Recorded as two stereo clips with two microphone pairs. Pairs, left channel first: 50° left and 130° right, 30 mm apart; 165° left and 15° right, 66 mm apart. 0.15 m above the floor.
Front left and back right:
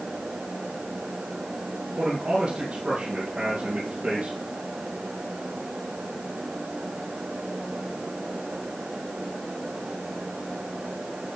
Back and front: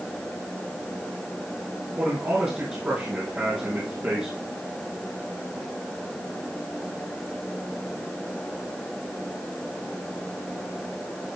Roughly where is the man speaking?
Right.